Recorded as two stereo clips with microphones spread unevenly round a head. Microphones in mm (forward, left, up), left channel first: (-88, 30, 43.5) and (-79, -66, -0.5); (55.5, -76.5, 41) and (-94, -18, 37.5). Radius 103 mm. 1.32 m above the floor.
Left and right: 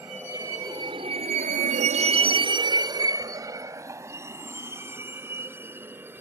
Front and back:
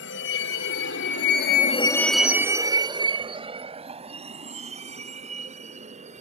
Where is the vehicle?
Straight ahead; by 6.2 s 155° right.